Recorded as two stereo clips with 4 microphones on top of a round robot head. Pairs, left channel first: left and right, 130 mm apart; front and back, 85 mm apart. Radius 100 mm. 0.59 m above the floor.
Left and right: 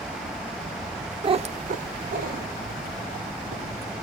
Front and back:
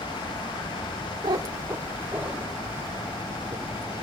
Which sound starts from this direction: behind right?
A cat meowing, at 1.2 s.